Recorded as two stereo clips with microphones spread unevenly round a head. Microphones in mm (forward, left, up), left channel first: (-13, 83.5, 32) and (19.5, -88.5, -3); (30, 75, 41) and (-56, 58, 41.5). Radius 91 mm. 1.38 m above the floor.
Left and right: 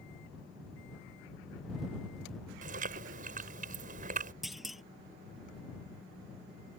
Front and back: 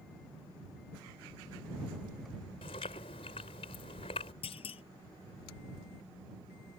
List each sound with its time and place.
2.6 s chewing: 35° right
4.4 s a clunk: 10° left